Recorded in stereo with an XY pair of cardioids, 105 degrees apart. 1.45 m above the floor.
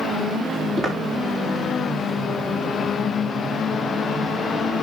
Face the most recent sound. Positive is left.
turn(degrees=-35)